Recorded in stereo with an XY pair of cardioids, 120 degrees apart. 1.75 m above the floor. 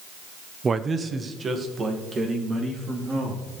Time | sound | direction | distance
0.6 | a man speaking | 25° right | 0.7 m